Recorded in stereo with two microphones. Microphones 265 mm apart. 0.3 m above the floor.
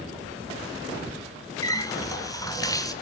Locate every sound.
1.6 s a running tap: 15° left (ahead or behind), 2 m